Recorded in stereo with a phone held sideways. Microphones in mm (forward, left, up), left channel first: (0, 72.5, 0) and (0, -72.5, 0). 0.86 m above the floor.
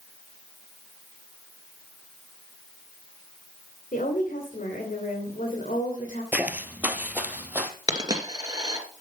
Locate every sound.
3.9 s a woman speaking: 65° left (ahead or behind), 3.5 m
6.3 s footsteps: 10° right (ahead or behind), 1.1 m
7.9 s a dropped coin: 25° right (ahead or behind), 2.5 m